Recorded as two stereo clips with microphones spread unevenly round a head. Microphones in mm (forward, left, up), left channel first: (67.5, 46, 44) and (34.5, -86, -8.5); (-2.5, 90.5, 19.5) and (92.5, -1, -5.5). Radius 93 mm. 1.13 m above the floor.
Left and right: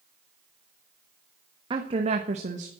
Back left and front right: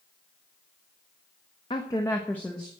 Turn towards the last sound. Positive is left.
turn(degrees=-130)